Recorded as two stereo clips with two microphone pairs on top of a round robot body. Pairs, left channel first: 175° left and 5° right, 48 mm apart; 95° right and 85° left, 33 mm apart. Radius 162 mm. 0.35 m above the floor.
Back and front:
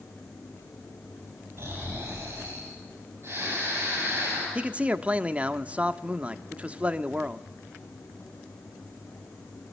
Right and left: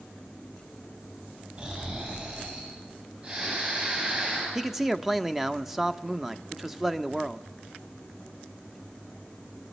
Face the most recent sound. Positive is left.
turn(degrees=10)